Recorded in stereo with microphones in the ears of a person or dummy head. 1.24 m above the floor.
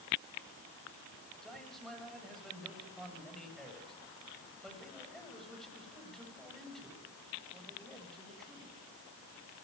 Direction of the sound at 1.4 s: Centre (ahead or behind).